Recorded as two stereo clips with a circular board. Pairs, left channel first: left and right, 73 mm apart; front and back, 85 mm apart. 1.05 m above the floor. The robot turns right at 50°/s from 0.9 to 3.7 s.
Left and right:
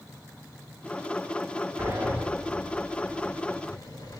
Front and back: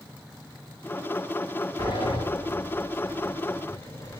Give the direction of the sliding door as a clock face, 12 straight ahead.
1 o'clock.